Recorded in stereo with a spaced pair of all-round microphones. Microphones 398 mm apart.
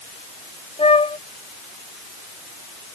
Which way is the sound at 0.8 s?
15° left (ahead or behind).